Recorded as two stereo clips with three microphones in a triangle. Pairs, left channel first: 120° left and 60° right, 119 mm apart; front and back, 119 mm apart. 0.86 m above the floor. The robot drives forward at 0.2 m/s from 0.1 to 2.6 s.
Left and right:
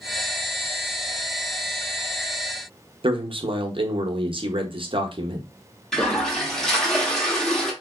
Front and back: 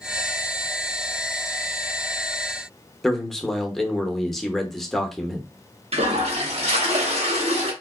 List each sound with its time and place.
3.0 s a man speaking: 85° right, 0.7 m
5.9 s a toilet flushing: 155° right, 1.0 m